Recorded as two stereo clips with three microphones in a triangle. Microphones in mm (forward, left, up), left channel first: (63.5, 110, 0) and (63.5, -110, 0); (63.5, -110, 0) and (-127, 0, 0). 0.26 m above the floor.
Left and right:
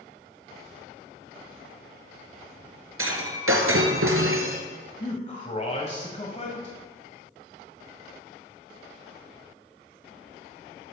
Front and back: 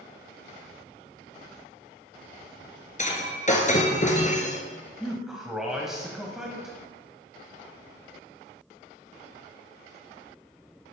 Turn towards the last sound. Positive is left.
turn(degrees=65)